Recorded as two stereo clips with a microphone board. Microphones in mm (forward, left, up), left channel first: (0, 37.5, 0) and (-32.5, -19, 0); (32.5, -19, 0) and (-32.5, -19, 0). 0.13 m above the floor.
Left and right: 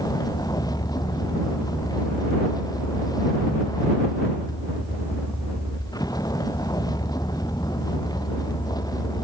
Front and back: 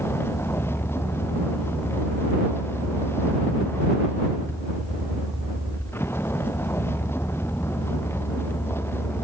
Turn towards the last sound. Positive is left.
turn(degrees=50)